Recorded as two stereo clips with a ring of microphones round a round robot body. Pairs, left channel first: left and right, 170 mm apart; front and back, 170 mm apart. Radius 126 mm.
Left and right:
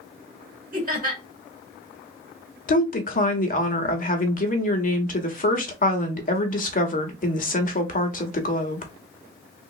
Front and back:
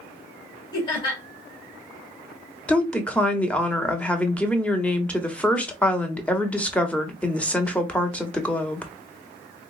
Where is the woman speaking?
80° left, 1.2 m.